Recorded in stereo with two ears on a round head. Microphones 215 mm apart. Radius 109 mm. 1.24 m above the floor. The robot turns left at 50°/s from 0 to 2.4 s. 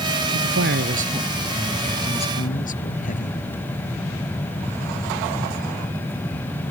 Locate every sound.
0.3 s a man speaking: 110° right; by 3.4 s 145° left